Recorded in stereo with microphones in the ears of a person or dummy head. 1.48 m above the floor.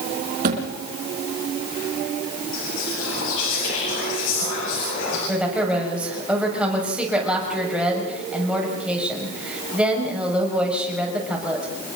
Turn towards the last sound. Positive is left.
turn(degrees=-5)  # may be behind; listen again after turning